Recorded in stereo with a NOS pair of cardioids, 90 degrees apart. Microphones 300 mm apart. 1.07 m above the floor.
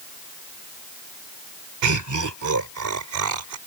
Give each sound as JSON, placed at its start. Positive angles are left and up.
{"t": 1.8, "sound": "laughter", "azimuth_deg": -70}